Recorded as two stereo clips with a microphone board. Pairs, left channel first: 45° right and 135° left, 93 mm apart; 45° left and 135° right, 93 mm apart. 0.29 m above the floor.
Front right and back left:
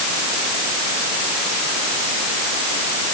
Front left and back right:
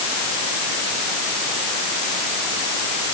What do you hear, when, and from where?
Only background noise.